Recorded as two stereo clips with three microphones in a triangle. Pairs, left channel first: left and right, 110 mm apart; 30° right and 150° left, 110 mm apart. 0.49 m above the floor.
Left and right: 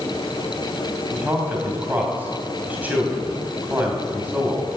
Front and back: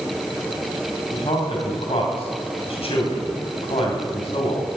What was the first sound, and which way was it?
A man speaking, 15° right.